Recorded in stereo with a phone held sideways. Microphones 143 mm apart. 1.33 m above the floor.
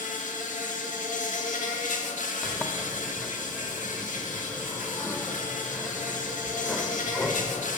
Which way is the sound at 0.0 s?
60° left (ahead or behind).